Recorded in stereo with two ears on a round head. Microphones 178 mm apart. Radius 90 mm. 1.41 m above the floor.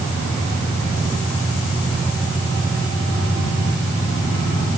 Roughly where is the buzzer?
I don't hear a buzzer.